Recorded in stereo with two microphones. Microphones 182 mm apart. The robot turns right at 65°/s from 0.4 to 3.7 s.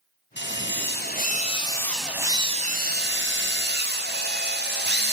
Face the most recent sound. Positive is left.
turn(degrees=-70)